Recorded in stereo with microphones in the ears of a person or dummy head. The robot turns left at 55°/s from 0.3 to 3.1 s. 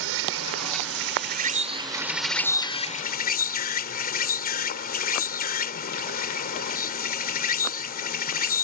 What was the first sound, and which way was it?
An insect, 75° right.